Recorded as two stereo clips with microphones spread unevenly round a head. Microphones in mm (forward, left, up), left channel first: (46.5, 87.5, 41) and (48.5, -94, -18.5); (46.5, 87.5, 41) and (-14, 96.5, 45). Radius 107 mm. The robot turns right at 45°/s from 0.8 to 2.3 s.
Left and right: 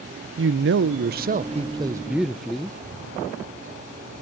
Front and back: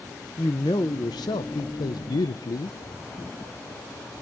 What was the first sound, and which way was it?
A man speaking, 60° right.